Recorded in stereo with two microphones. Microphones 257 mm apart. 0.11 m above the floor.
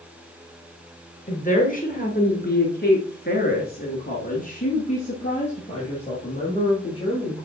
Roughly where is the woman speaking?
Left.